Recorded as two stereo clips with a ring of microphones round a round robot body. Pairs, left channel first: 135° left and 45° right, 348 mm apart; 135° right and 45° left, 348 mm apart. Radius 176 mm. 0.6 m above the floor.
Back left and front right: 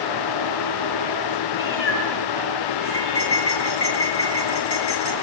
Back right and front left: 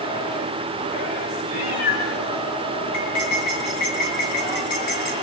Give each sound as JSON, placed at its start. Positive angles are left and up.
{"t": 1.5, "sound": "a cat meowing", "azimuth_deg": -170, "distance_m": 5.0}
{"t": 2.9, "sound": "cutlery clinking", "azimuth_deg": -170, "distance_m": 6.5}